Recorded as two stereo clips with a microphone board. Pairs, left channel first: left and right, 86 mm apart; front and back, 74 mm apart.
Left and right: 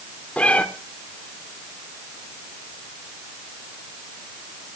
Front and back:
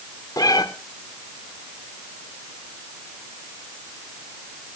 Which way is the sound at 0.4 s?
15° left.